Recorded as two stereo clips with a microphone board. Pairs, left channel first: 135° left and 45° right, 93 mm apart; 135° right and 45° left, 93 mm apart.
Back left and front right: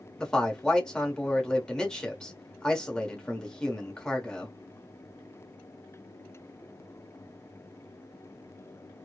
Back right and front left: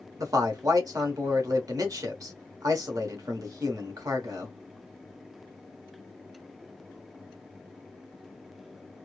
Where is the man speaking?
55° left, 1.0 m.